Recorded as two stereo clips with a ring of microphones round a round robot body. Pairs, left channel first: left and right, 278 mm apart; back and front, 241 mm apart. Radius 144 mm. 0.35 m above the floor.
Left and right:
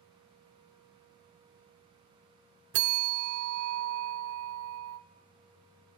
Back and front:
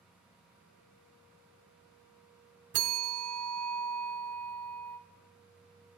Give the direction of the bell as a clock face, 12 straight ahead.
1 o'clock.